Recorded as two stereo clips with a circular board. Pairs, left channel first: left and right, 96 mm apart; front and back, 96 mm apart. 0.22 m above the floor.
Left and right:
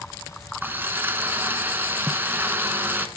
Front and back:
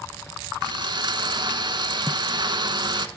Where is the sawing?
155° right, 0.8 m.